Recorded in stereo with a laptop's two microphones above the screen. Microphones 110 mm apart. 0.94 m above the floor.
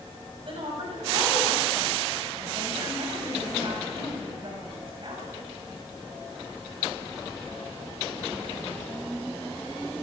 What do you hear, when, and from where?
0.5 s a woman speaking: 55° right (ahead or behind), 7 m